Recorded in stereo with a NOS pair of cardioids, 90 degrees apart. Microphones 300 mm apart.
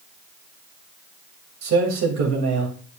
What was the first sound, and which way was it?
A man speaking, 65° right.